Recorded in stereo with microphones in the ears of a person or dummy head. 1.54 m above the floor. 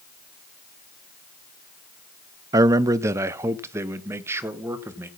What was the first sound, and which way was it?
A man speaking, 15° right (ahead or behind).